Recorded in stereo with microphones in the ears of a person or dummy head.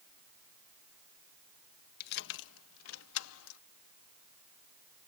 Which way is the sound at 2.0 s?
55° left (ahead or behind).